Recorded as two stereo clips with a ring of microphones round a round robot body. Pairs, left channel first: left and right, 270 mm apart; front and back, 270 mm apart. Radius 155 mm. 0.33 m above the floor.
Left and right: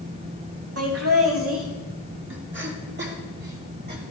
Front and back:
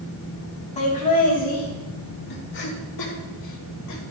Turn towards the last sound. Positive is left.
turn(degrees=-35)